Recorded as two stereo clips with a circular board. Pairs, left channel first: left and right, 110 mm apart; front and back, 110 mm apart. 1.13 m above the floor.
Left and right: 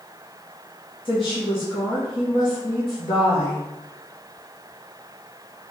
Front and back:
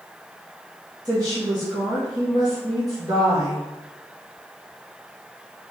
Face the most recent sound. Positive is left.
turn(degrees=130)